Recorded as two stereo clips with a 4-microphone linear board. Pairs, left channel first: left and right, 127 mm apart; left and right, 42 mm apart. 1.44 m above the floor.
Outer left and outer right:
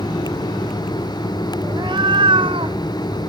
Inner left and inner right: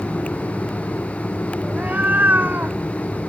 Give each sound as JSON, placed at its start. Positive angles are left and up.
{"t": 1.6, "sound": "a cat meowing", "side_deg": -40}